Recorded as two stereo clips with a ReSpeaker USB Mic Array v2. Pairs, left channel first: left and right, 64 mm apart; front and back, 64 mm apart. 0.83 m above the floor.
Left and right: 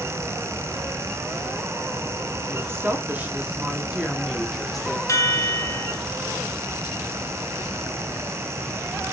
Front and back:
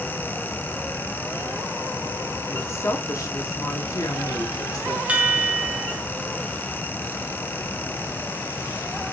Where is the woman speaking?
45° right, 1.9 m; by 5.0 s 5° left, 2 m.